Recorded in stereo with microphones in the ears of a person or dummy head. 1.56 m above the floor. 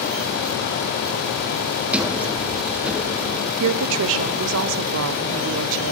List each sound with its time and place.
1.9 s a sliding door: 10° right (ahead or behind), 0.6 m
3.6 s a woman speaking: 75° right (ahead or behind), 0.5 m